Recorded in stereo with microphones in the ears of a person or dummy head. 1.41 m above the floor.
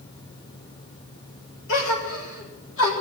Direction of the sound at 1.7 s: 75° left (ahead or behind).